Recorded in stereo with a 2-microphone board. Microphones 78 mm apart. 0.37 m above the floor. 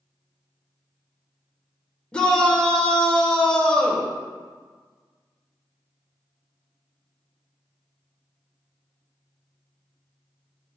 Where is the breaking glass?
I don't hear breaking glass.